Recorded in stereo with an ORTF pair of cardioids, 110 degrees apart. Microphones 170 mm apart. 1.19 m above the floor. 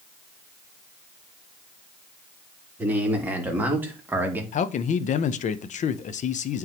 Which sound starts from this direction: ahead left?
A man speaking, at 4.5 s.